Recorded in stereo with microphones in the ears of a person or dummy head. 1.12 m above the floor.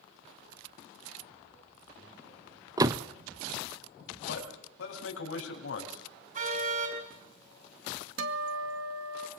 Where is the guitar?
70° right (ahead or behind), 1.8 m.